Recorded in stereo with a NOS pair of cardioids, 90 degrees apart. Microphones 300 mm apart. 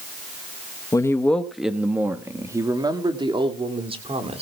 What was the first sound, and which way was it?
A man speaking, 15° left.